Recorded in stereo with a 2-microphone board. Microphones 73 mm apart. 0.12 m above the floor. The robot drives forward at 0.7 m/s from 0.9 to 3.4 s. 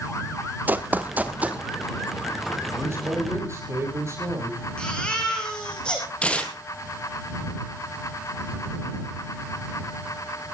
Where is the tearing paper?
15° left (ahead or behind), 2.5 m.